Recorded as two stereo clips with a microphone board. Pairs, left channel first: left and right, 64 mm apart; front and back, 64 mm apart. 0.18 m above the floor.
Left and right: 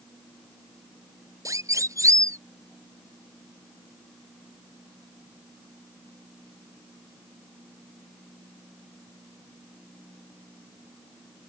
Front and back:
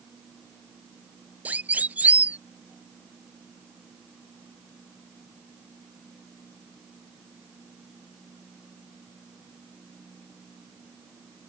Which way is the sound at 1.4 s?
115° right.